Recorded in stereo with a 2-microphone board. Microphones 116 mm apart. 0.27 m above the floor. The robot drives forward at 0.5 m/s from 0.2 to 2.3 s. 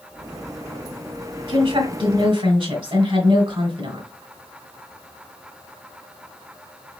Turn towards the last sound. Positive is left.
turn(degrees=-55)  # may be behind; listen again after turning